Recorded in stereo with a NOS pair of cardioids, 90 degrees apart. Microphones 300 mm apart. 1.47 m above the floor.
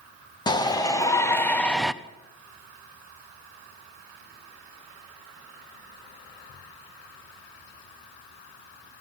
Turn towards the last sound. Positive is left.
turn(degrees=0)